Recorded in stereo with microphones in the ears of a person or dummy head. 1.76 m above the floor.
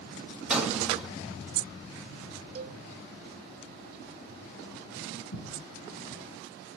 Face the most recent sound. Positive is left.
turn(degrees=80)